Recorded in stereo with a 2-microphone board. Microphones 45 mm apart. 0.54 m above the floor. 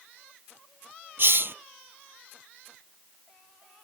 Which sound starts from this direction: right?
A hiss, at 1.2 s.